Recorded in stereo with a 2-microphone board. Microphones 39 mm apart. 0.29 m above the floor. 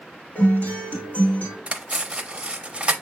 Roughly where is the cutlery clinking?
Right.